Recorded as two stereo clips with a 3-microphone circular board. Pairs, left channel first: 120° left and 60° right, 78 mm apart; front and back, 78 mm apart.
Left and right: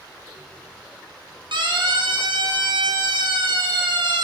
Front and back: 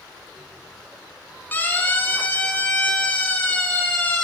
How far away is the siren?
About 8 m.